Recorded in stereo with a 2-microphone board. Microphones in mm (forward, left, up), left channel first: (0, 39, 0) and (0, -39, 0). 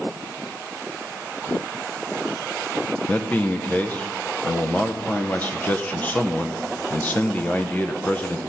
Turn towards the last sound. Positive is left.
turn(degrees=20)  # may be behind; listen again after turning